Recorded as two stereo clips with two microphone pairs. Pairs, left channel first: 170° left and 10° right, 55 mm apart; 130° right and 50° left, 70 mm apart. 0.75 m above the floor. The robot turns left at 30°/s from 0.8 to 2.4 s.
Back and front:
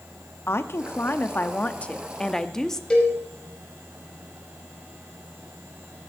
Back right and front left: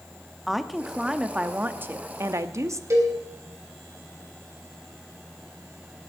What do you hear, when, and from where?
0.5 s a woman speaking: 135° left, 0.8 m; by 2.8 s 90° left, 0.8 m
2.9 s a cowbell: 90° left, 4 m